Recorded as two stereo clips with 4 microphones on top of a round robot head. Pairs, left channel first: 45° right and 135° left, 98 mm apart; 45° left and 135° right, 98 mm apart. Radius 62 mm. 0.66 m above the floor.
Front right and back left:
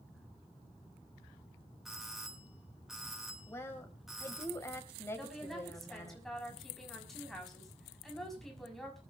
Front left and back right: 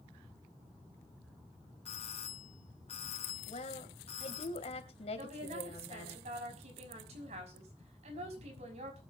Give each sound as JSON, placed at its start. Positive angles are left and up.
{"t": 1.9, "sound": "a doorbell", "azimuth_deg": 50, "distance_m": 3.5}
{"t": 3.5, "sound": "a woman speaking", "azimuth_deg": 20, "distance_m": 3.0}
{"t": 5.2, "sound": "a woman speaking", "azimuth_deg": -135, "distance_m": 6.0}